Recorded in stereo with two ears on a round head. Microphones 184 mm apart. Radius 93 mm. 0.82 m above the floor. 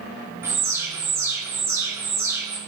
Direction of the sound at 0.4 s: 15° right (ahead or behind).